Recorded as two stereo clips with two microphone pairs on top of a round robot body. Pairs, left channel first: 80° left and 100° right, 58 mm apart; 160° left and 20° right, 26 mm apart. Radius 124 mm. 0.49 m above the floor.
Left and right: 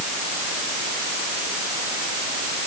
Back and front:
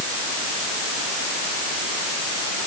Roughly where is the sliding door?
I don't hear a sliding door.